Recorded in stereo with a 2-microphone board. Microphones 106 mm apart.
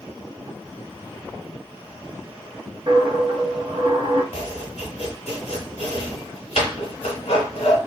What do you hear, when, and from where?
2.9 s a dropped coin: 55° right (ahead or behind), 0.8 m
4.3 s chopping: 80° left, 0.8 m